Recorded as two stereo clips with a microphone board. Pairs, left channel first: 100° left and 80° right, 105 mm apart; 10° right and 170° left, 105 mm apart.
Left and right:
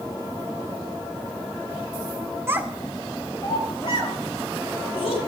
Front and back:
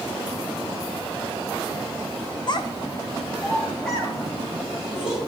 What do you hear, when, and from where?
2.5 s a child speaking: 25° right, 0.7 m; by 5.2 s 85° left, 2.5 m